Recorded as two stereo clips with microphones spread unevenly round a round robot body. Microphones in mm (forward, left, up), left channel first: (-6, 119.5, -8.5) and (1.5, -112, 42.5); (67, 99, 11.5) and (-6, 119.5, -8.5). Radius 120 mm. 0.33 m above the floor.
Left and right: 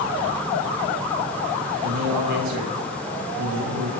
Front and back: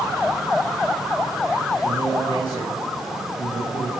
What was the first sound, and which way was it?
A man speaking, 85° right.